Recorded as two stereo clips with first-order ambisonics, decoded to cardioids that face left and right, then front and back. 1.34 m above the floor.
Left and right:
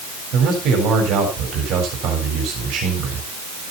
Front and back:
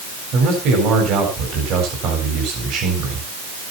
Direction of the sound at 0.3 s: 135° right.